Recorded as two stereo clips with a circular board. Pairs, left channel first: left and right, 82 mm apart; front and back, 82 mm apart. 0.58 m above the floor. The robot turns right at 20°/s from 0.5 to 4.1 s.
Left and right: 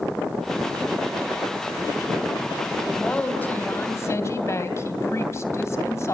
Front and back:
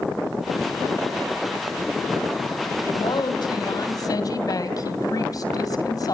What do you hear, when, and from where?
2.9 s a woman speaking: 15° left, 3 m; by 6.2 s 35° left, 3 m